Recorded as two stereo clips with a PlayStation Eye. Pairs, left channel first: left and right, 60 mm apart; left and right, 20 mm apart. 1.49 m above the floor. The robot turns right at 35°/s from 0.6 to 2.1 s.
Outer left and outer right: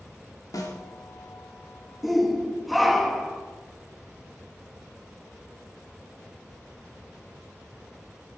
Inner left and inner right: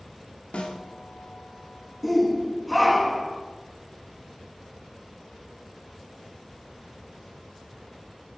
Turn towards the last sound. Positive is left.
turn(degrees=0)  # may be behind; listen again after turning